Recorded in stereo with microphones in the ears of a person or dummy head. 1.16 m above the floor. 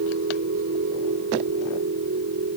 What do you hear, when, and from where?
0.0 s a machine running: 60° right (ahead or behind)